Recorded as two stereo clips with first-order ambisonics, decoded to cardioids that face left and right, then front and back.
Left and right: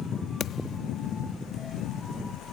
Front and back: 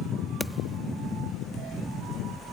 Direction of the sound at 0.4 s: 85° left.